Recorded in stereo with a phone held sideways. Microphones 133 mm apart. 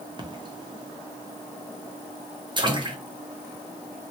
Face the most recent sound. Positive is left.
turn(degrees=-35)  # may be behind; listen again after turning